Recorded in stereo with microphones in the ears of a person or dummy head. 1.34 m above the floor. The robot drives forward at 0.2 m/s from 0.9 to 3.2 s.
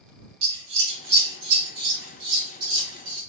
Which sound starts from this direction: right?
Scissors, at 0.4 s.